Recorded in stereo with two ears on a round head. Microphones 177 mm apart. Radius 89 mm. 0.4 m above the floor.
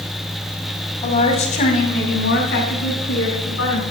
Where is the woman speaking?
25° left (ahead or behind), 2.5 m; by 3.8 s 65° left (ahead or behind), 4 m.